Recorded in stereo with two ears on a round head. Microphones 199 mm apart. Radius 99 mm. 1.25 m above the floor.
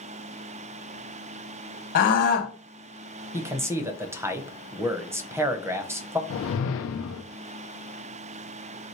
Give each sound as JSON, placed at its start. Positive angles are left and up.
{"t": 1.9, "sound": "a scream", "side_deg": 40, "distance_m": 1.8}
{"t": 3.3, "sound": "a man speaking", "side_deg": -10, "distance_m": 0.6}
{"t": 6.3, "sound": "a whoosh", "side_deg": 60, "distance_m": 0.6}